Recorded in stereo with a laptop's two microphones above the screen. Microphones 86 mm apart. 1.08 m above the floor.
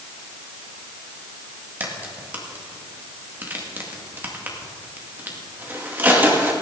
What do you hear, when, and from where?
1.8 s a crack: 20° right (ahead or behind), 2 m